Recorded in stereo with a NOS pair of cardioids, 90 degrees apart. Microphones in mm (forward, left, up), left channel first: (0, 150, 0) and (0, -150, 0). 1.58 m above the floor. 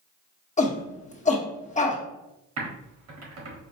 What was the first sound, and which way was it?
A shout, 25° left.